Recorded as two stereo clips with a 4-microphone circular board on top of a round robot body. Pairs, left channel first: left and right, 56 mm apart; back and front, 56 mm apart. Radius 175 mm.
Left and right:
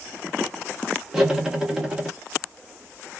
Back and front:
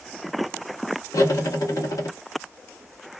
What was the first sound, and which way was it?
Cutlery clinking, 170° right.